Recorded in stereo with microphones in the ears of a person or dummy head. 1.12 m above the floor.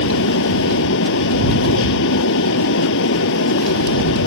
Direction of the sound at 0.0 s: 70° left (ahead or behind).